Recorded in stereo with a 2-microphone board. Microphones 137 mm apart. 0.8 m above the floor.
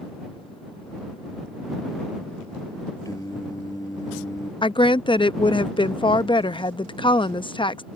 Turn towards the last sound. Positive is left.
turn(degrees=35)  # may be behind; listen again after turning